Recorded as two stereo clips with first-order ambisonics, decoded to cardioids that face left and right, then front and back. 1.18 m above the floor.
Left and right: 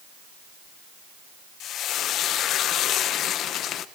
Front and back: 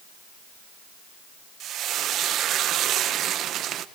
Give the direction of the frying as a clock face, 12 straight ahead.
7 o'clock.